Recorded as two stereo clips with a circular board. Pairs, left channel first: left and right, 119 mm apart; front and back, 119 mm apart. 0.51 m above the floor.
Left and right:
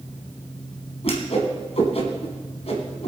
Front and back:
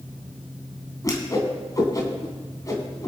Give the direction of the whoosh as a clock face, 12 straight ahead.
10 o'clock.